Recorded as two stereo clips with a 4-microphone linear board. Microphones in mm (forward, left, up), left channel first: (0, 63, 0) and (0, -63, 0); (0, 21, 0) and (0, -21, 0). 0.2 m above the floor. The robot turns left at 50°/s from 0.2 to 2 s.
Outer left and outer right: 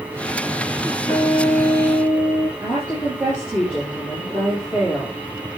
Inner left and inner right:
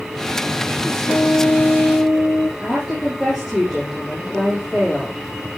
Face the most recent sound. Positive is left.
turn(degrees=-10)  # may be behind; listen again after turning